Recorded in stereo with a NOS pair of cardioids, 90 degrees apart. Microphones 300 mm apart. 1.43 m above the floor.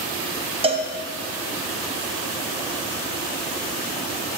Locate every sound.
0.6 s a cowbell: 20° right, 0.5 m